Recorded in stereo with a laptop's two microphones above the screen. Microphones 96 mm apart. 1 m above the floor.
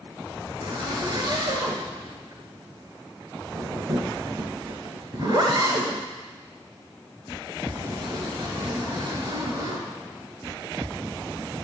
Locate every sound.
0.6 s a zipper: 50° right (ahead or behind), 2 m